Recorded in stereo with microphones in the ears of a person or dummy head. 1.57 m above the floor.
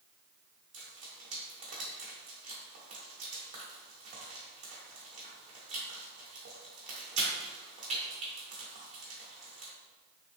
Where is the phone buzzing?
I don't hear a phone buzzing.